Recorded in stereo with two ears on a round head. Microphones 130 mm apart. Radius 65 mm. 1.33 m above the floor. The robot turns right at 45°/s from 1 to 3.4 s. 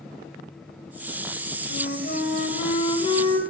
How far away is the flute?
About 2.5 m.